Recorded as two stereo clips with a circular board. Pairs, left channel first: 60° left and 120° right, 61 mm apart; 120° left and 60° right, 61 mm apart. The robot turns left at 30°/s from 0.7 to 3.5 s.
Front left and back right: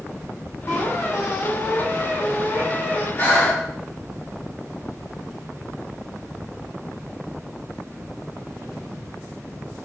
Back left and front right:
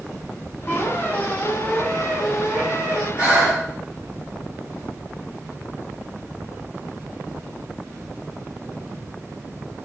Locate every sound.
0.7 s a squeak: 75° left, 1.8 m; by 3.1 s 5° left, 1.8 m
3.2 s breathing: 10° left, 1.5 m; by 3.6 s straight ahead, 1.5 m